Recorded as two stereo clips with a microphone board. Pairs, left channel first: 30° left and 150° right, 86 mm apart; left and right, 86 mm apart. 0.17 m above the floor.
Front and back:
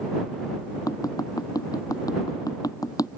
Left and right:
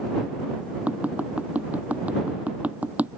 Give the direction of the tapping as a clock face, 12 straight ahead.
1 o'clock.